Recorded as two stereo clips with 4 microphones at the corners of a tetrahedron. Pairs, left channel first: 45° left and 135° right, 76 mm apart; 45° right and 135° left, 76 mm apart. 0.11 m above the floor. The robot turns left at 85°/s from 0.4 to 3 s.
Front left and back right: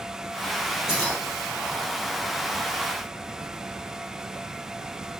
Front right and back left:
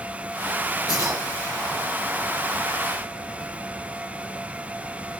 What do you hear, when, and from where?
0.9 s keys jangling: 55° right, 7.5 m; by 1.2 s 80° right, 7.5 m